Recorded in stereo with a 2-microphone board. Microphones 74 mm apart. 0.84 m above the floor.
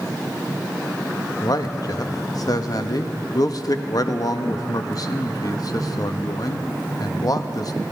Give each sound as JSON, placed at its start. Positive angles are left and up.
{"t": 1.4, "sound": "a man speaking", "side_deg": 55, "distance_m": 0.8}